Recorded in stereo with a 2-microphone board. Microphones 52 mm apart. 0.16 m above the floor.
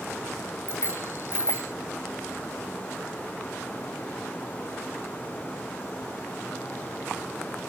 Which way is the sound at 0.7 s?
45° left (ahead or behind).